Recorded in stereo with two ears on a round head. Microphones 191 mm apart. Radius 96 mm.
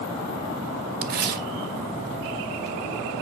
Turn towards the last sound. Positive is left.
turn(degrees=-45)  # may be behind; listen again after turning